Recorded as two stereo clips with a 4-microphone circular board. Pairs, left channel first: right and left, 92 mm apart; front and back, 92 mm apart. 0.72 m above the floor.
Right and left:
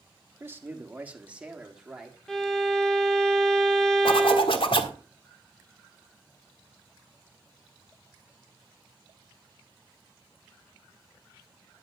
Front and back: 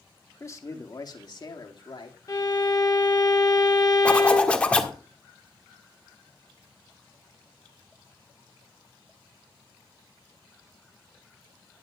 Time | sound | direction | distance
0.4 | a man speaking | 40° left | 1.4 m
2.3 | a violin | 10° right | 1.4 m
4.0 | a zipper | 75° right | 1.4 m